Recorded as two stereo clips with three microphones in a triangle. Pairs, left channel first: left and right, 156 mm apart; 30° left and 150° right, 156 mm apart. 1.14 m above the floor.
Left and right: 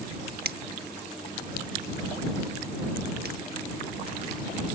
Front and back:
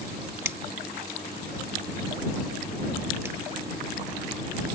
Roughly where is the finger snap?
Right.